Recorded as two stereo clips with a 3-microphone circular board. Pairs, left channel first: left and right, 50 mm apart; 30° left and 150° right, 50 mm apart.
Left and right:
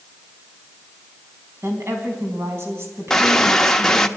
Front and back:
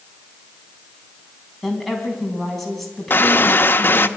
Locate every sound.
1.6 s a woman speaking: 55° right, 4.5 m
3.1 s a gunshot: 10° left, 0.8 m